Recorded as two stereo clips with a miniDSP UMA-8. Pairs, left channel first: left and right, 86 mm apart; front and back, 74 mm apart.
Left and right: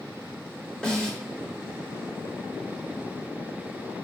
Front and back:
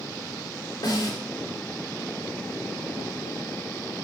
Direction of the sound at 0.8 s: 10° left.